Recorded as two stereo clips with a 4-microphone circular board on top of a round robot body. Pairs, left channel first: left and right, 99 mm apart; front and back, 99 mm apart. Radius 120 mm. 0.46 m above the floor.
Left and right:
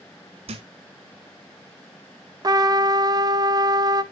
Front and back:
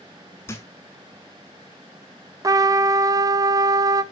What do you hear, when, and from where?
0.5 s a thud: 65° right, 0.6 m
2.4 s a trumpet: 135° right, 0.7 m